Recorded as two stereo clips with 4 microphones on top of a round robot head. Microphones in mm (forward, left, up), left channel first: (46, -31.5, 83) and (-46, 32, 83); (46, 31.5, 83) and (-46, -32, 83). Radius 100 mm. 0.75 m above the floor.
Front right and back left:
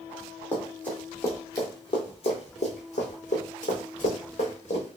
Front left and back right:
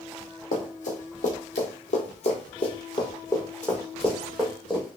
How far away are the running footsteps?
About 1.7 m.